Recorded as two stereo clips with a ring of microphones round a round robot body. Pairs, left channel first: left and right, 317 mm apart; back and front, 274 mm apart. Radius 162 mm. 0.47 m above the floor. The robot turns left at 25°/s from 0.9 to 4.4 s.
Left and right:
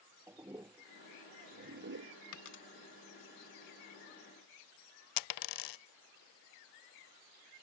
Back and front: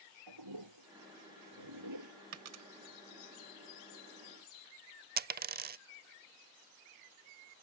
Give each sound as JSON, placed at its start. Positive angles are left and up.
{"t": 0.3, "sound": "a toilet flushing", "azimuth_deg": -10}
{"t": 2.3, "sound": "a dropped coin", "azimuth_deg": 40}
{"t": 5.2, "sound": "a dropped coin", "azimuth_deg": 60}